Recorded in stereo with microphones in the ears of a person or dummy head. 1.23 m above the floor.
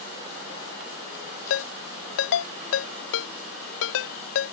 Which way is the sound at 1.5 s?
70° left (ahead or behind).